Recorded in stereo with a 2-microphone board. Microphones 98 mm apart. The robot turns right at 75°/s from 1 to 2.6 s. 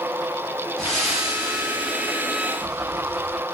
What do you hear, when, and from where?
0.8 s breathing: straight behind, 2.5 m; by 3.4 s 60° right, 2.5 m